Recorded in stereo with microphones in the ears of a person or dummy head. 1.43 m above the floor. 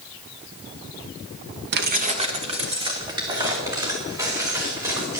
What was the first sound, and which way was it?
Keys jangling, 50° right (ahead or behind).